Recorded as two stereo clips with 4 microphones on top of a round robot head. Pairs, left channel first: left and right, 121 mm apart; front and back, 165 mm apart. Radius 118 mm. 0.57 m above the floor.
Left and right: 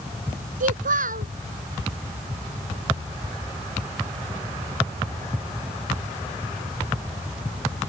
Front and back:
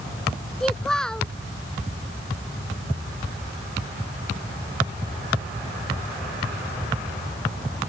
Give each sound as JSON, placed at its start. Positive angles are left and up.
{"t": 0.6, "sound": "a child speaking", "azimuth_deg": -90}